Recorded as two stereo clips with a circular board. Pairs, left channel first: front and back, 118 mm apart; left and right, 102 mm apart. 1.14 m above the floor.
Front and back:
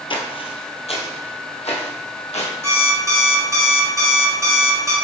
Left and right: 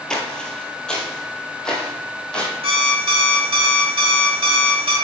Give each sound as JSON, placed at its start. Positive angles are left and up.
{"t": 0.1, "sound": "footsteps", "azimuth_deg": 10, "distance_m": 1.5}
{"t": 2.6, "sound": "an alarm clock", "azimuth_deg": -115, "distance_m": 1.8}